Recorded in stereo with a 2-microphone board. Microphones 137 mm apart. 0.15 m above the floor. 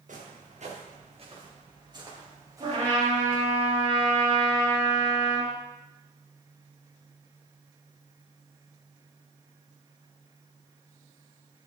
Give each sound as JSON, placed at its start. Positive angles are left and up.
{"t": 0.1, "sound": "footsteps", "side_deg": -70, "distance_m": 3.0}
{"t": 2.6, "sound": "a trumpet", "side_deg": -50, "distance_m": 3.5}